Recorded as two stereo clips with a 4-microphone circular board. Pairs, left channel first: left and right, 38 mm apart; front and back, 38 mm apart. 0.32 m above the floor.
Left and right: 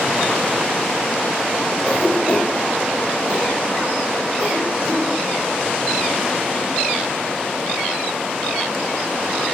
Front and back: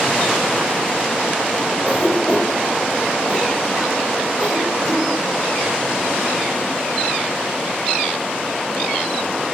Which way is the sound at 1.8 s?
110° right.